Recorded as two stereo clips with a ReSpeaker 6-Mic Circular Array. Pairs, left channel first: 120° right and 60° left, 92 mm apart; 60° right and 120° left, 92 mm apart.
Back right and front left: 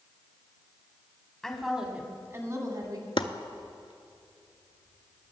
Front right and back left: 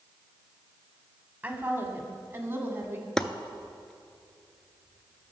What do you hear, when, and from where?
1.4 s a woman speaking: 165° left, 1.1 m; by 3.1 s 65° left, 1.4 m
3.2 s chopping: 140° right, 0.5 m